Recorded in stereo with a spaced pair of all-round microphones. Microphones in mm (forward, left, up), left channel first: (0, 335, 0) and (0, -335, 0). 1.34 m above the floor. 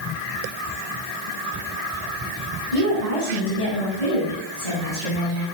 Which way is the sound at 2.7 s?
70° left (ahead or behind).